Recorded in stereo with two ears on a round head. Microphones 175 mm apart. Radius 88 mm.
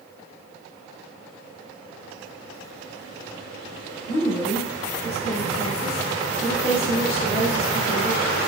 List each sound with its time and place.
4.1 s a woman speaking: 15° right (ahead or behind), 1.2 m